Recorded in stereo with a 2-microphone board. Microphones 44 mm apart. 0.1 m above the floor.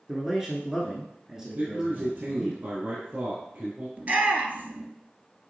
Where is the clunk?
No clunk in this recording.